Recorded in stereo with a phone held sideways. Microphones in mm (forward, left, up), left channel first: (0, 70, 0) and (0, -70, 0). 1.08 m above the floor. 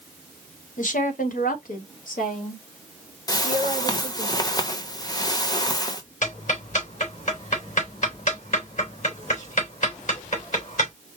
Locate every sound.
0.8 s a woman speaking: 65° left (ahead or behind), 1.2 m
3.3 s a whoosh: 25° left (ahead or behind), 1.0 m
6.2 s ticking: 65° left (ahead or behind), 3 m